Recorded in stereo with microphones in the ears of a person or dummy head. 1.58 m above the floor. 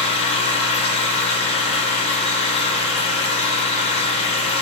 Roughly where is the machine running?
Left.